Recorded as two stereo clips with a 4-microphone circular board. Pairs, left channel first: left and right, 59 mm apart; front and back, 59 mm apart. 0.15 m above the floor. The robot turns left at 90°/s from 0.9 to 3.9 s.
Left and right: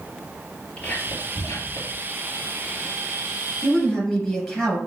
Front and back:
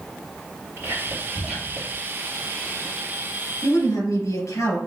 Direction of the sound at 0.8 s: 150° left.